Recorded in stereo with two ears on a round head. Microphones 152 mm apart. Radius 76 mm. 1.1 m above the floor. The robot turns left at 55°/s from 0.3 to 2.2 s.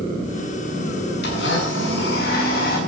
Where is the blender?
115° left, 7 m; by 2.8 s 60° left, 7 m.